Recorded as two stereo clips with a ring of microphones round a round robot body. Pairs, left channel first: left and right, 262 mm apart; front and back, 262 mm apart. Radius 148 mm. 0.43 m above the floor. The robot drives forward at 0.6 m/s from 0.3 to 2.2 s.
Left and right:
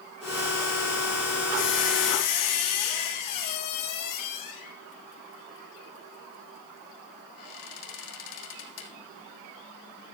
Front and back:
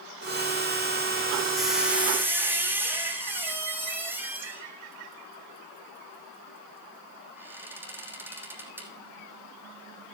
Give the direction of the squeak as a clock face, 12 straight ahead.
9 o'clock.